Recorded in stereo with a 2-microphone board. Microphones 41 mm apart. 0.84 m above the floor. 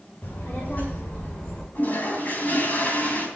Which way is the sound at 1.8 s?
45° left (ahead or behind).